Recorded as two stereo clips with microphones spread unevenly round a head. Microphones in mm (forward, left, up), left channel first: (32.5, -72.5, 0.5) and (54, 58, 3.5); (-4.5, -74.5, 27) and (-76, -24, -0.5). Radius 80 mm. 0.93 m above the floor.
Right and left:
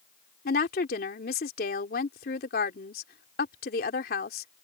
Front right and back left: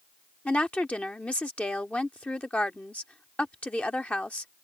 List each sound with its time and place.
0.5 s a woman speaking: 115° right